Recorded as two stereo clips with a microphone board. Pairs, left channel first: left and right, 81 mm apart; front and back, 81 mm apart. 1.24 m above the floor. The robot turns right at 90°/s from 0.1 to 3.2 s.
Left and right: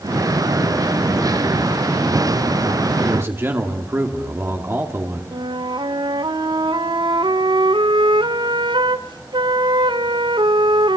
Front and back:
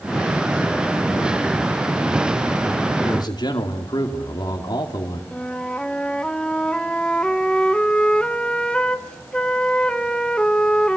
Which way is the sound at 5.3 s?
80° right.